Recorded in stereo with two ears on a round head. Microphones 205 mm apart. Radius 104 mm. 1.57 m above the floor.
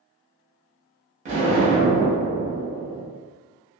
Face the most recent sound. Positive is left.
turn(degrees=-30)  # may be behind; listen again after turning